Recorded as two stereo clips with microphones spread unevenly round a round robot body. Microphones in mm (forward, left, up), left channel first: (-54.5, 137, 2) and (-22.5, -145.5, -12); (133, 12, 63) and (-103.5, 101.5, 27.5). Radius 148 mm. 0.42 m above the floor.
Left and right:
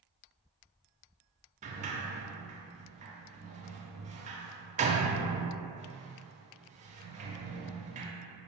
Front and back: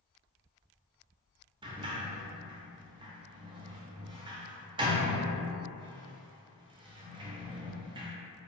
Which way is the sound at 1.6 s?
140° right.